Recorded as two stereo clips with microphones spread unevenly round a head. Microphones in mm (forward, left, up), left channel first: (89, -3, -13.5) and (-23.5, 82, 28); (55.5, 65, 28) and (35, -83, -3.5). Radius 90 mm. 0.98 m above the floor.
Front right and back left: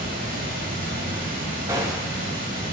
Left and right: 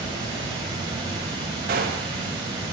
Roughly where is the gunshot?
Behind right.